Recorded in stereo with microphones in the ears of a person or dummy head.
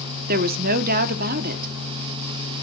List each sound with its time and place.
0.3 s a woman speaking: 50° right (ahead or behind), 0.9 m